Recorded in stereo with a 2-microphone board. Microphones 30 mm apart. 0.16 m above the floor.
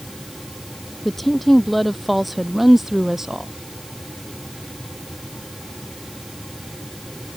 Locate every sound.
1.1 s a woman speaking: 10° left (ahead or behind); by 3.5 s 15° right (ahead or behind)